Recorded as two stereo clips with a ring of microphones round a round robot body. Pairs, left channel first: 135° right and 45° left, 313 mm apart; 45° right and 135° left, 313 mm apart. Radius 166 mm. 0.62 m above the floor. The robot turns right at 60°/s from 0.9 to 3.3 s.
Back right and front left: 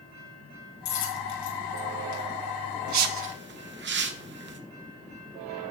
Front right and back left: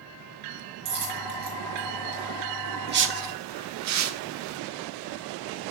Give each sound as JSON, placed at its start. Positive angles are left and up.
{"t": 0.8, "sound": "a dropped coin", "azimuth_deg": 165, "distance_m": 4.0}
{"t": 2.9, "sound": "a whoosh", "azimuth_deg": 75, "distance_m": 1.1}